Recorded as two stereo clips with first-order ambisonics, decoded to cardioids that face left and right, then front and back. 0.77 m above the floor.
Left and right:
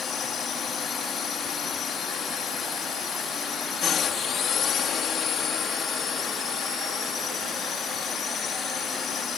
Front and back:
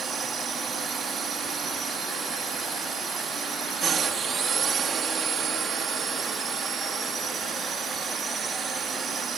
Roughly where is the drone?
Behind left.